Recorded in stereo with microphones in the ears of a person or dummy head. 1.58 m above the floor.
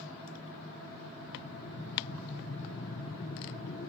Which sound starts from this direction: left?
Breathing, at 1.2 s.